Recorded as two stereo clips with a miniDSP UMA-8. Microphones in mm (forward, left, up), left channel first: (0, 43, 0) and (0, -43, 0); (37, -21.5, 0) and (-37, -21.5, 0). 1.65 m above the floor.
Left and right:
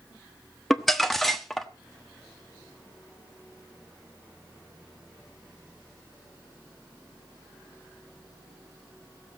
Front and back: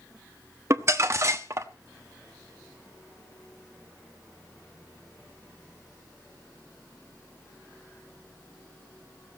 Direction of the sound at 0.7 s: 175° left.